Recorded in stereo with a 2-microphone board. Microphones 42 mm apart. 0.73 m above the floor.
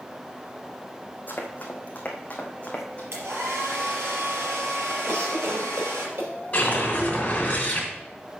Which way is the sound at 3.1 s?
70° right (ahead or behind).